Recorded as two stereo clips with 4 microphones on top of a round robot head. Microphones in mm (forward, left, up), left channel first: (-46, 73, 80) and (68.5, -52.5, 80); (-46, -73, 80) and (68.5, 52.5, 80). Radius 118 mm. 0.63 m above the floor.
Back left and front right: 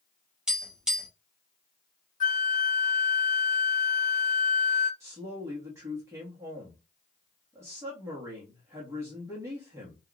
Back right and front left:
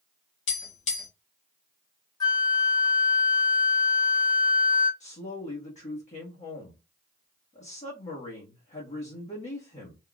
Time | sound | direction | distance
0.5 | tapping | 135° right | 1.5 m
2.2 | a flute | 165° left | 1.2 m
5.0 | a woman speaking | 115° right | 1.3 m